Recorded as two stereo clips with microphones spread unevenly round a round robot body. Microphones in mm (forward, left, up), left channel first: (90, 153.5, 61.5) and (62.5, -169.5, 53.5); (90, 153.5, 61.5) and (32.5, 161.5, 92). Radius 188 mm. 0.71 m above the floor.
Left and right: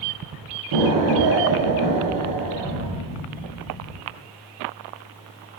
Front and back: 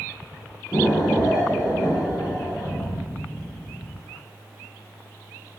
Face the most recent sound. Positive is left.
turn(degrees=-85)